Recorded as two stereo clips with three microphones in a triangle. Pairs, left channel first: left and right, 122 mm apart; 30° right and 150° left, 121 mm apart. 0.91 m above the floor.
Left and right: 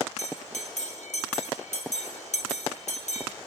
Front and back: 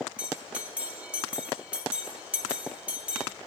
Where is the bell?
70° left, 1.0 m.